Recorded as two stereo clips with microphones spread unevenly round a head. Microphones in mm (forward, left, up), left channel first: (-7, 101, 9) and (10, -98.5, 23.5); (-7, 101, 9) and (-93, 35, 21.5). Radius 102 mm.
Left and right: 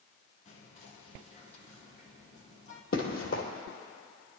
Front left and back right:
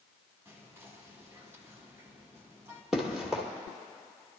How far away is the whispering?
About 2.5 m.